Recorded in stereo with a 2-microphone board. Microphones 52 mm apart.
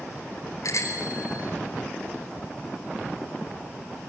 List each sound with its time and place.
0.6 s a bicycle bell: 80° left, 5 m